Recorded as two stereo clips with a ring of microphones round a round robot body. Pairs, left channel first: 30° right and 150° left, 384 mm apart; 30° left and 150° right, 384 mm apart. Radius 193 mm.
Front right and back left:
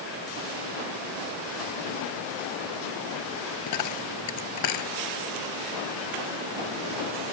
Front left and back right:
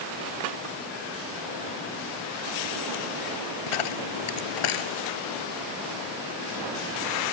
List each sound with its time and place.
3.7 s a dropped coin: 20° left